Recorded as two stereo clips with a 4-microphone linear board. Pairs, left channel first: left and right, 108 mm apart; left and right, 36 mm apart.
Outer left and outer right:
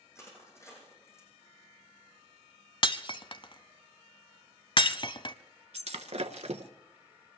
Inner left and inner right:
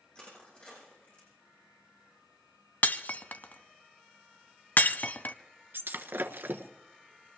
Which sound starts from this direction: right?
Breaking glass, at 5.7 s.